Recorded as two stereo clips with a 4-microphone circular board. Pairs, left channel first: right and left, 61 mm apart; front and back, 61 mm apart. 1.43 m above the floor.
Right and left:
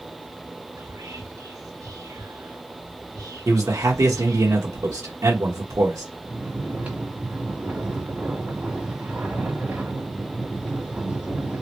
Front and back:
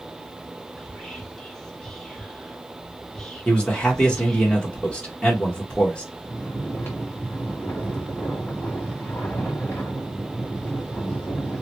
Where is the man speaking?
70° left, 1.2 m.